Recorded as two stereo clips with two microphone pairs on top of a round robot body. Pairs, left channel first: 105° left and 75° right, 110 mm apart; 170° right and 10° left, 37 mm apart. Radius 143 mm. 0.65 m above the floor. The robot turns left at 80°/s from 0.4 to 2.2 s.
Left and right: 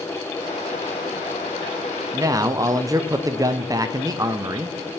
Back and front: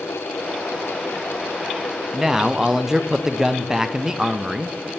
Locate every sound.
2.1 s a man speaking: 55° right, 0.5 m; by 4.9 s 60° right, 0.5 m